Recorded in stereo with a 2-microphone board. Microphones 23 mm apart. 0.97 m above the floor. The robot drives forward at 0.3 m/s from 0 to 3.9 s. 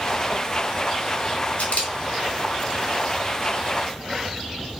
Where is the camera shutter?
70° left (ahead or behind), 2 m; by 1.9 s 65° left (ahead or behind), 2 m.